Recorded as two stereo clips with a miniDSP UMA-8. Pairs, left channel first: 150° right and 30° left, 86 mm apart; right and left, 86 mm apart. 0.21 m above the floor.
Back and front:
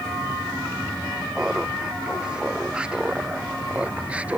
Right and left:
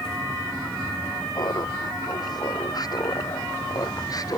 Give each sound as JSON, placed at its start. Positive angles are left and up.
{"t": 1.4, "sound": "laughter", "azimuth_deg": -50}